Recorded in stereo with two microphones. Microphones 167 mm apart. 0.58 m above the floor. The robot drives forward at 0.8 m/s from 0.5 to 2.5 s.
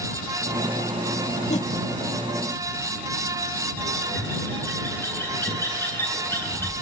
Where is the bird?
15° left (ahead or behind), 8.5 m.